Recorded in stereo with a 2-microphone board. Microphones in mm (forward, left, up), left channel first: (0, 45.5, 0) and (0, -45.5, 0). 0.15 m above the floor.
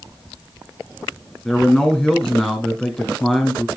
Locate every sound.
1.4 s a man speaking: 10° left (ahead or behind), 1.5 m